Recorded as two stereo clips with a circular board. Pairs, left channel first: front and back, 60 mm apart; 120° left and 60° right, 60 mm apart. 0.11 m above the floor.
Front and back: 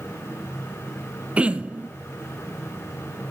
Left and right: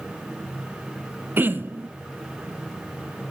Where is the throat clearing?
110° right, 0.8 m.